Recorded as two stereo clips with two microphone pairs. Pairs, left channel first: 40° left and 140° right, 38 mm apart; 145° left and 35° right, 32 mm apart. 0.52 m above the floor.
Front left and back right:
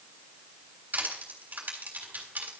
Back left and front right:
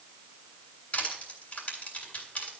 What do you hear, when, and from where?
0.9 s crushing: 170° right, 3.5 m